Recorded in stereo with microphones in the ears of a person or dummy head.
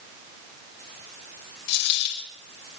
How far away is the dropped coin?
About 4.5 m.